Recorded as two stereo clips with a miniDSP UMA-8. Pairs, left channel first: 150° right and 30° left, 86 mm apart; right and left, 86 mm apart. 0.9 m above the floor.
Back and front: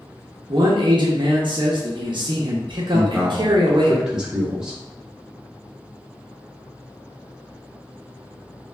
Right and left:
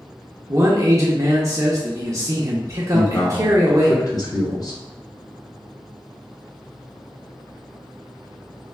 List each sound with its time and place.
0.5 s a man speaking: 45° left, 0.5 m
2.9 s a man speaking: 50° right, 0.9 m